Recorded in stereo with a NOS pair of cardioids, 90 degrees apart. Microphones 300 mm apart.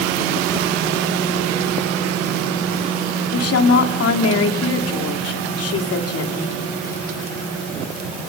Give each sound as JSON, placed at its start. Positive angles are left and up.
{"t": 3.3, "sound": "a woman speaking", "azimuth_deg": 50, "distance_m": 3.0}